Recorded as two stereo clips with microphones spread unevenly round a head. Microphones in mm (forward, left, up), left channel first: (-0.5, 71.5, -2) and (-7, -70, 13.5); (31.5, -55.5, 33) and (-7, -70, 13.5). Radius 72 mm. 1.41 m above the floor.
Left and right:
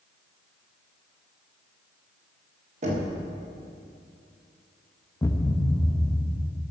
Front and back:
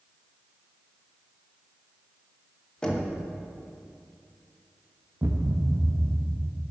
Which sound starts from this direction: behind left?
A thud, at 5.2 s.